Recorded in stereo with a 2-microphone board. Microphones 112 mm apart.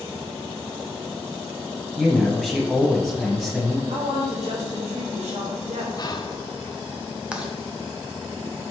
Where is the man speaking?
Centre (ahead or behind), 1.6 m.